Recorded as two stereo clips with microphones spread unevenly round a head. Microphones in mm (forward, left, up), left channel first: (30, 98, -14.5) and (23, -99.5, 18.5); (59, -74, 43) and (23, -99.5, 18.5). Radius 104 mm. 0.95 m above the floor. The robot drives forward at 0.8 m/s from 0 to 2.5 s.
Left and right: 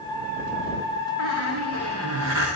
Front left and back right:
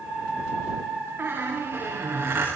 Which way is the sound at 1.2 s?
105° right.